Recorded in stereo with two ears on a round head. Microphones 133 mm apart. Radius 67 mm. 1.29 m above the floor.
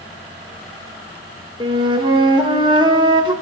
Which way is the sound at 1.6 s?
30° right (ahead or behind).